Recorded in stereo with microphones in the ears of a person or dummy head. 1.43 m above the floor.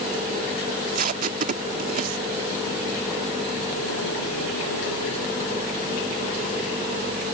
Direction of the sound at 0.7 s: 45° right (ahead or behind).